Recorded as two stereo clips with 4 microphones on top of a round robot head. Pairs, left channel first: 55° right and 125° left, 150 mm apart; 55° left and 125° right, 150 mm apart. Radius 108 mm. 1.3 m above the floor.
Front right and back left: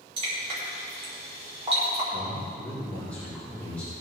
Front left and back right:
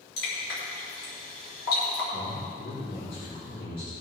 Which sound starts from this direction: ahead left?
A man speaking, at 2.1 s.